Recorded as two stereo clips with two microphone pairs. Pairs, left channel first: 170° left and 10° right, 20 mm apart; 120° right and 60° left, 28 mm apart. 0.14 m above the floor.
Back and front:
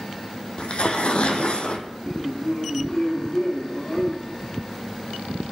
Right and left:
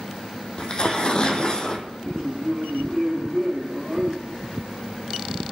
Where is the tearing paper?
175° right, 1.6 m.